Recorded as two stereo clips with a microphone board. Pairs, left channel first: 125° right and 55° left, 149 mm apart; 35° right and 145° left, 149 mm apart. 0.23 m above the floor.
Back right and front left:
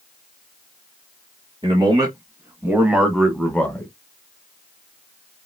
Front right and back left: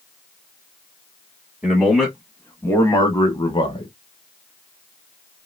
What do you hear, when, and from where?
1.6 s a man speaking: 75° left, 1.1 m; by 3.9 s 55° right, 1.2 m